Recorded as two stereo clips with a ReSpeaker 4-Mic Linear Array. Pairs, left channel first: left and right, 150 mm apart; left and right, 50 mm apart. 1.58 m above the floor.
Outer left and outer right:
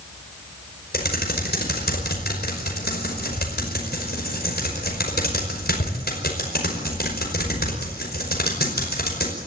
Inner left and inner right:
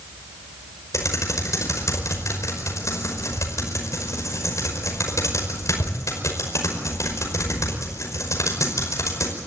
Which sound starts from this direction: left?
Typing on a keyboard, at 0.9 s.